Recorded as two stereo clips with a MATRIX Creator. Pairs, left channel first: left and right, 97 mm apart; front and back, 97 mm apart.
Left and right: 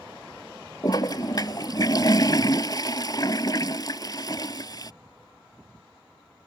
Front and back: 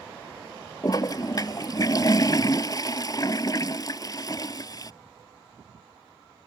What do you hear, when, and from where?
0.8 s a toilet flushing: 45° left